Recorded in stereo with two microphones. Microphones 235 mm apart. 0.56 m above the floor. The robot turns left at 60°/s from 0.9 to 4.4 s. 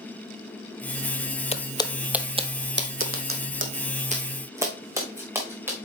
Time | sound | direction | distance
1.5 | footsteps | 25° left (ahead or behind) | 0.6 m